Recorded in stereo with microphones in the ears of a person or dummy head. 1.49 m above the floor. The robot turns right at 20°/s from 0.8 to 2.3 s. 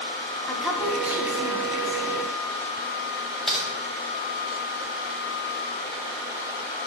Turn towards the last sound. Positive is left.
turn(degrees=0)  # may be behind; listen again after turning